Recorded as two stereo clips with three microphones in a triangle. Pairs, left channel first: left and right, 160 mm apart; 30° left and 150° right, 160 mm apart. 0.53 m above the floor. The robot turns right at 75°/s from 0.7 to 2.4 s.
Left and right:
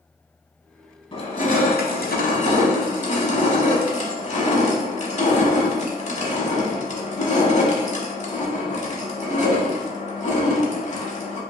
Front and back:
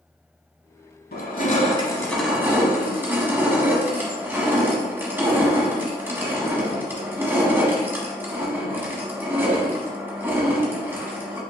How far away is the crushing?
About 0.8 m.